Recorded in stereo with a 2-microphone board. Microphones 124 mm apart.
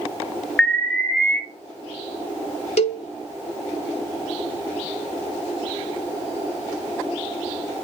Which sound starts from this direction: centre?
An alarm, at 0.6 s.